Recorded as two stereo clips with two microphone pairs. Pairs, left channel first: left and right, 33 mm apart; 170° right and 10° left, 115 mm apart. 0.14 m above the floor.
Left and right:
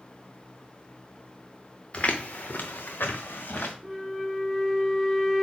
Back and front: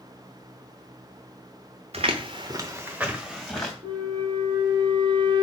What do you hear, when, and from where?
1.9 s footsteps: 35° left, 0.9 m; by 3.7 s 105° left, 1.4 m
3.8 s a flute: 5° right, 1.0 m